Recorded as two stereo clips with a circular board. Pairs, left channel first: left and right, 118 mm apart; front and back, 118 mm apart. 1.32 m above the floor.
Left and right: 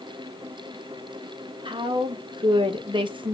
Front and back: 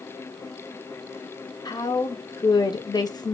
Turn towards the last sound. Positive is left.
turn(degrees=-50)